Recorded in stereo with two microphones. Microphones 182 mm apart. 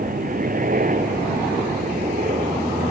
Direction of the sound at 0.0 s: 50° right (ahead or behind).